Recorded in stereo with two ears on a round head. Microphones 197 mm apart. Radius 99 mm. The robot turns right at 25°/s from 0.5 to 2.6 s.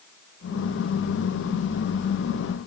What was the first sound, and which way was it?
Only background noise.